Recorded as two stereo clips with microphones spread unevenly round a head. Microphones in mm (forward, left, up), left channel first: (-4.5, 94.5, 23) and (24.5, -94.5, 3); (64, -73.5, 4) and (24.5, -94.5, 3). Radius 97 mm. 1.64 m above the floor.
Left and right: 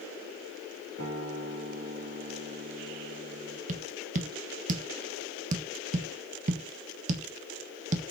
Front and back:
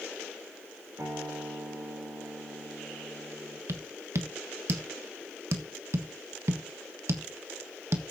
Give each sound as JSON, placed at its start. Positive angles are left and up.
{"t": 1.0, "sound": "a guitar", "azimuth_deg": -120, "distance_m": 6.0}
{"t": 3.7, "sound": "tapping", "azimuth_deg": -135, "distance_m": 1.3}